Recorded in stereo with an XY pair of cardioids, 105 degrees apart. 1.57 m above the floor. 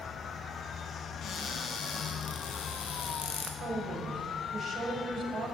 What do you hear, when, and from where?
1.2 s a cupboard door: 60° left, 0.8 m
3.6 s a woman speaking: 50° right, 1.5 m